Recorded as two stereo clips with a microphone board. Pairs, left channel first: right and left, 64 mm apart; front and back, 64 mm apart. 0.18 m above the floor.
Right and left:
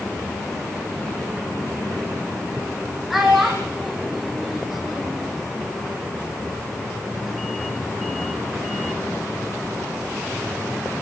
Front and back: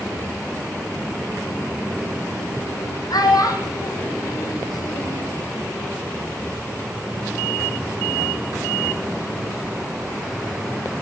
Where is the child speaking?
Straight ahead, 7.5 m.